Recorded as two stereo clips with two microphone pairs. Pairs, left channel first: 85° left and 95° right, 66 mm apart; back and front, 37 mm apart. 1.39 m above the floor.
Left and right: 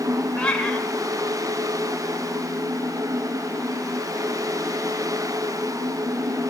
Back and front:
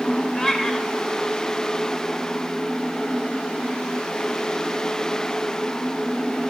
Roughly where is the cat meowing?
Behind left.